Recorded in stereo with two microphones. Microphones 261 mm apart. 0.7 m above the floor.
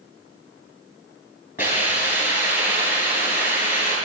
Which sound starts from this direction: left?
A hiss, at 1.6 s.